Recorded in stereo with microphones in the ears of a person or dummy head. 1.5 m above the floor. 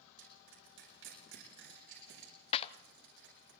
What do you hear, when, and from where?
0.2 s crushing: 65° right (ahead or behind), 10 m
2.5 s a clap: 30° left (ahead or behind), 0.6 m